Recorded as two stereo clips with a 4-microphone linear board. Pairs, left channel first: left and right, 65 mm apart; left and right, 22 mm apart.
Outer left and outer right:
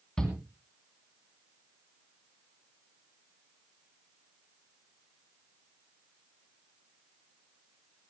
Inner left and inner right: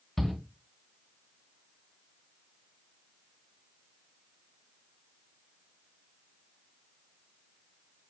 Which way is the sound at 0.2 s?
10° left (ahead or behind).